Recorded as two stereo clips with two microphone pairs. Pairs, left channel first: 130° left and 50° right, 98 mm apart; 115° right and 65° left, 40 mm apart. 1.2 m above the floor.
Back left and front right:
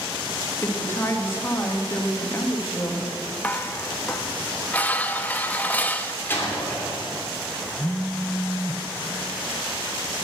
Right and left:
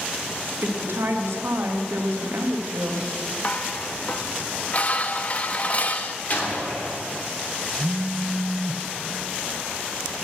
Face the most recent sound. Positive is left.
turn(degrees=50)